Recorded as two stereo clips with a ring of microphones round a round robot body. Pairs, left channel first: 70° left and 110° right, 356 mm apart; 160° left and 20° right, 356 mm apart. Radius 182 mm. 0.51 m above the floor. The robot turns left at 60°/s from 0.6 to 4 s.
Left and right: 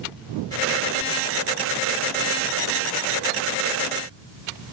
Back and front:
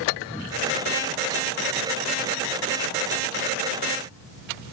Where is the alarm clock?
I don't hear an alarm clock.